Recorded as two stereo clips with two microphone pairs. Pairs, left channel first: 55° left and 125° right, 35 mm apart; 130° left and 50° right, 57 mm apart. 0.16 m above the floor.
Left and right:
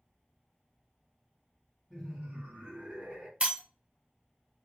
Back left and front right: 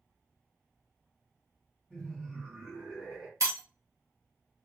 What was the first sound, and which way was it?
Laughter, 170° right.